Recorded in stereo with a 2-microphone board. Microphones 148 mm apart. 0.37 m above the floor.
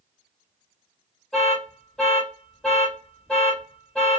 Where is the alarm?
5° left (ahead or behind), 1.1 m.